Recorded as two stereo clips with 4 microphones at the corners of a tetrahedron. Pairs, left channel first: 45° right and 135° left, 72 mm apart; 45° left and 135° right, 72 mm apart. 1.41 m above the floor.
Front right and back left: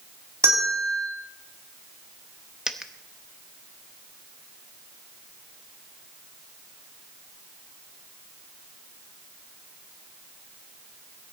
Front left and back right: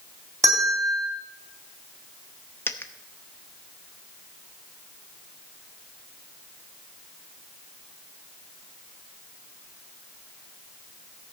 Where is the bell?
Straight behind, 3.5 m.